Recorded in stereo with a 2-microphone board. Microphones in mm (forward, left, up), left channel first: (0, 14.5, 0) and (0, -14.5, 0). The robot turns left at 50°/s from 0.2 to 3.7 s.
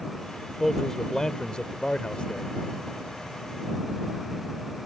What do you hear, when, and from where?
0.6 s a man speaking: 165° left; by 2.5 s 65° left